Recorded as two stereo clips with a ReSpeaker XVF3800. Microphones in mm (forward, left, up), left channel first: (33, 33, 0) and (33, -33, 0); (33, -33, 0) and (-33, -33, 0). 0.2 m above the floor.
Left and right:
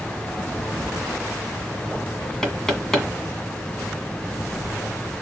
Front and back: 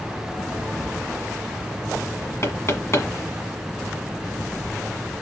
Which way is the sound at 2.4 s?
15° left.